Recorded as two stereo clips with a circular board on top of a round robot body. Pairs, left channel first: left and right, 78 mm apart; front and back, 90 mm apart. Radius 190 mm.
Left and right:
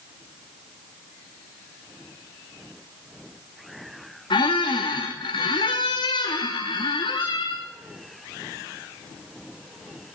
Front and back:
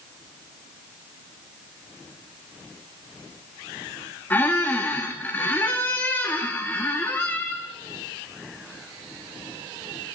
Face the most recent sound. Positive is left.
turn(degrees=70)